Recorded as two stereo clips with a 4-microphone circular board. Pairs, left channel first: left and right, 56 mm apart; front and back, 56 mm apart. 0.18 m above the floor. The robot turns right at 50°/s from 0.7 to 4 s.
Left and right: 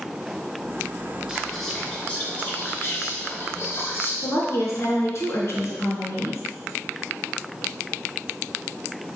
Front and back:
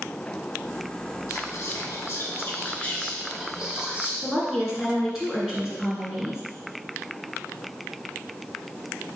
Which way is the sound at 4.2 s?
100° left.